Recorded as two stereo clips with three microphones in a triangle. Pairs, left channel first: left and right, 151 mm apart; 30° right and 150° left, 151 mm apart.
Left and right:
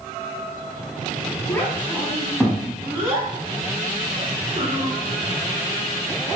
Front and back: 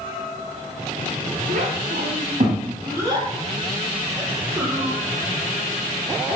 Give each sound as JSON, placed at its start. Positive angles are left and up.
{"t": 1.5, "sound": "a child speaking", "azimuth_deg": 160, "distance_m": 2.0}